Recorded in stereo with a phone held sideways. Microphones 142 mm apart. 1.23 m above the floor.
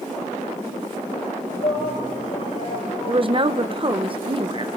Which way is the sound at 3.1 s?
40° right (ahead or behind).